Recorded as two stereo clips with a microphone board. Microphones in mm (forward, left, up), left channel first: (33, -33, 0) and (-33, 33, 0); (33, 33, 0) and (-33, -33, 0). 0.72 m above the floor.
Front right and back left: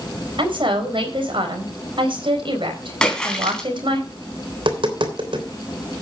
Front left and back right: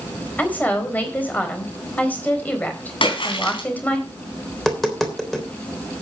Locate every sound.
0.4 s a woman speaking: 115° left, 4 m
3.0 s a splash: 35° left, 3.5 m
4.5 s tapping: 135° left, 3.5 m